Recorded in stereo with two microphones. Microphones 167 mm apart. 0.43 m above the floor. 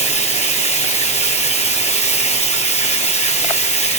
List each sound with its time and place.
0.0 s running water: 40° left (ahead or behind), 0.9 m